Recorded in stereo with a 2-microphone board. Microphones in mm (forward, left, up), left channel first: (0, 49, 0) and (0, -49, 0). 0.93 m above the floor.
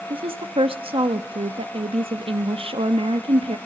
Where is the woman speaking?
65° right (ahead or behind), 0.9 m.